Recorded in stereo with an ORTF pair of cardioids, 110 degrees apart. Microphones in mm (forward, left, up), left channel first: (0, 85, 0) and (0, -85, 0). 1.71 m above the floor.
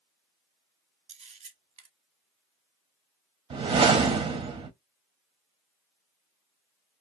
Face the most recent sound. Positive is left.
turn(degrees=-35)